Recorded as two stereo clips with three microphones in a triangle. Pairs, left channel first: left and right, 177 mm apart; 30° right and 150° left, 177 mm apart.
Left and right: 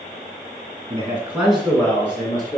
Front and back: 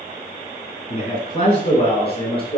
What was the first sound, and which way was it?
A man speaking, 40° right.